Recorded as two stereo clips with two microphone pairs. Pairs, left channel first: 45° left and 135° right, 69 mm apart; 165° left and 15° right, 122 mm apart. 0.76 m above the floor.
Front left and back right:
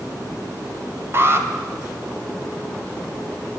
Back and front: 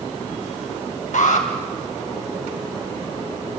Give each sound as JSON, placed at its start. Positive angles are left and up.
{"t": 1.1, "sound": "an alarm", "azimuth_deg": 175, "distance_m": 2.5}